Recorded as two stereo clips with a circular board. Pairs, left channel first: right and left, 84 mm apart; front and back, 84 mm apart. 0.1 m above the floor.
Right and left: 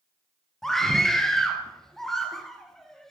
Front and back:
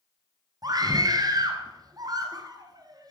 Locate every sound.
0.6 s a scream: 175° right, 2.0 m